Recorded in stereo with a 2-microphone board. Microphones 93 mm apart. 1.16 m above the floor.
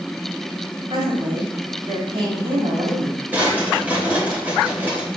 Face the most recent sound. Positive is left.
turn(degrees=-20)  # may be behind; listen again after turning